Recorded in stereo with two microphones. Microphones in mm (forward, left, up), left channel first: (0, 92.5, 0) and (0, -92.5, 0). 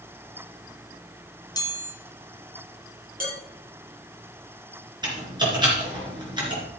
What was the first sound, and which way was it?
A chime, 20° left (ahead or behind).